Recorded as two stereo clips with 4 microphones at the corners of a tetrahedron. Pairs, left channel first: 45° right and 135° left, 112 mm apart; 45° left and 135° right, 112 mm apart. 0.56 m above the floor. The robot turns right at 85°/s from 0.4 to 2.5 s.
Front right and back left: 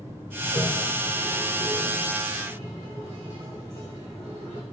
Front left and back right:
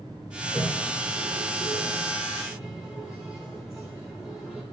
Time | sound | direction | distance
0.4 | a toilet flushing | 40° right | 2 m